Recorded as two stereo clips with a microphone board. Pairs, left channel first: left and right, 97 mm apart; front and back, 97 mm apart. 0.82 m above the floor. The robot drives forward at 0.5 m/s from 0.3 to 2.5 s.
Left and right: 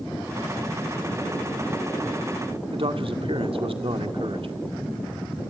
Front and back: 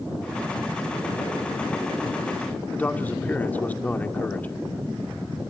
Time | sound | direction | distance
2.7 | a man speaking | 75° right | 1.8 m